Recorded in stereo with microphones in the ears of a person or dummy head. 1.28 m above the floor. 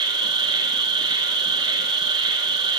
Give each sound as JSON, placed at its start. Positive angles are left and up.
{"t": 0.0, "sound": "an insect", "side_deg": -25, "distance_m": 4.5}